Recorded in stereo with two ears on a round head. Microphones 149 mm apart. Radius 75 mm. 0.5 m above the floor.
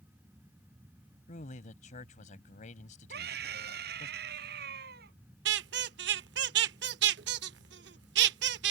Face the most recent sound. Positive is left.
turn(degrees=-65)  # may be behind; listen again after turning